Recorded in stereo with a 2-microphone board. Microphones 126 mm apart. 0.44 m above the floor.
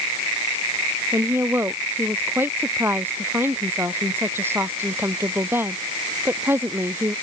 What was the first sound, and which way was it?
A woman speaking, 20° right (ahead or behind).